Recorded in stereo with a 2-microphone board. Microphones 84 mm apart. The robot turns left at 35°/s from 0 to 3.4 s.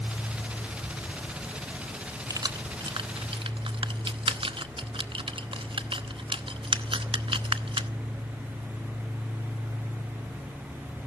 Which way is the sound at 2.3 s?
45° right (ahead or behind).